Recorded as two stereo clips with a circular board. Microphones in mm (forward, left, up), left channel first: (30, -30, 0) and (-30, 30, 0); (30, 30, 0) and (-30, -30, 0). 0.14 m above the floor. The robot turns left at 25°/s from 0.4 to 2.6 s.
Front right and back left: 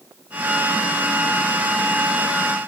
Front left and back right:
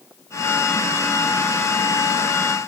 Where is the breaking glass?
I don't hear breaking glass.